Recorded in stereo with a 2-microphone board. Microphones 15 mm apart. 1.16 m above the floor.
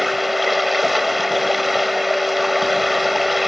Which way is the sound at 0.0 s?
15° right (ahead or behind).